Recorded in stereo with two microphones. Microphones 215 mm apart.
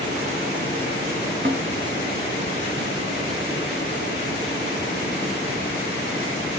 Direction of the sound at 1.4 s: 50° right (ahead or behind).